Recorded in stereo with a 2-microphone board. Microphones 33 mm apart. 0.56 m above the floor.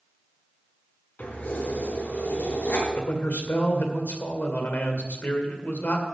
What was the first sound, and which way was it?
Keys jangling, 80° left.